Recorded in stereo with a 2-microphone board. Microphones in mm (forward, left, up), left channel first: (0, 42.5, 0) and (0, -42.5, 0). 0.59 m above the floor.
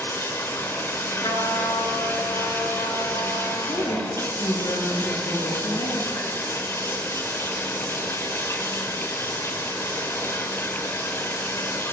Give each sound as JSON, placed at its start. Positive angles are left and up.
{"t": 0.0, "sound": "running water", "side_deg": 35, "distance_m": 2.5}
{"t": 1.2, "sound": "a trumpet", "side_deg": 60, "distance_m": 4.5}
{"t": 3.7, "sound": "a woman speaking", "side_deg": 70, "distance_m": 8.0}